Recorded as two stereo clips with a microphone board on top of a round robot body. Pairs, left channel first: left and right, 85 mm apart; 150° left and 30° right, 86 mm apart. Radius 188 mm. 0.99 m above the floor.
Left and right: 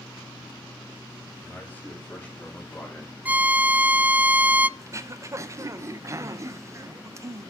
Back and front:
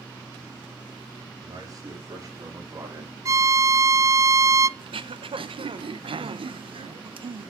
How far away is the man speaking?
About 3.5 m.